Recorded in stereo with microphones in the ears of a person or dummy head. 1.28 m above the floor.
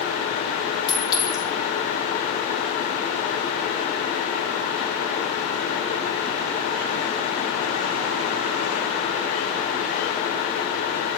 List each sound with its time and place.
0.9 s a clink: 25° left (ahead or behind), 2.5 m